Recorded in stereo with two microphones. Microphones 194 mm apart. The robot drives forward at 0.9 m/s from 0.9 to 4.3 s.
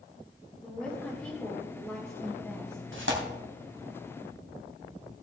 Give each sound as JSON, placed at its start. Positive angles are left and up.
{"t": 0.6, "sound": "a woman speaking", "side_deg": 5, "distance_m": 2.5}
{"t": 2.9, "sound": "tearing paper", "side_deg": -75, "distance_m": 2.0}